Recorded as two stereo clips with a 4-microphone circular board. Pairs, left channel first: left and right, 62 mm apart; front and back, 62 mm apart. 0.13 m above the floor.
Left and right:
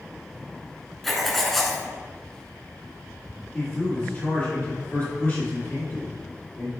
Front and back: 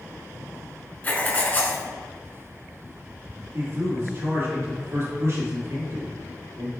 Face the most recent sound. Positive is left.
turn(degrees=160)